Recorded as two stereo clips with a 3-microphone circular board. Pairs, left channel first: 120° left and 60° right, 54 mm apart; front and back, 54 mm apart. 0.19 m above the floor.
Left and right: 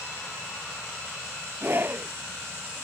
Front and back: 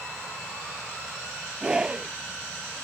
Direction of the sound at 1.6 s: 110° right.